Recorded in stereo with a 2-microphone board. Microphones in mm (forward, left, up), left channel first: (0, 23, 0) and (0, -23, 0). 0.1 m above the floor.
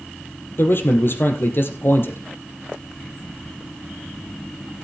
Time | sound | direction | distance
0.6 | a man speaking | 55° left (ahead or behind) | 3.5 m